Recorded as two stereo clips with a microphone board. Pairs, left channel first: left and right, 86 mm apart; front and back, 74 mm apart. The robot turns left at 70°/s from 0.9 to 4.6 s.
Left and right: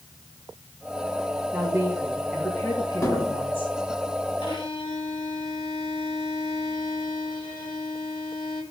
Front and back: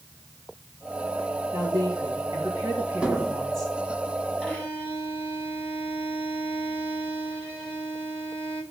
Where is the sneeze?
No sneeze in this recording.